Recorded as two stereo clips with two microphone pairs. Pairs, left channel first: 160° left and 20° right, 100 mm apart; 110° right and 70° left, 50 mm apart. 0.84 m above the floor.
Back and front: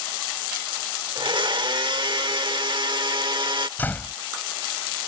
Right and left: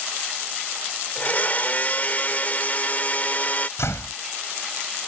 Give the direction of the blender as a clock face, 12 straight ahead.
2 o'clock.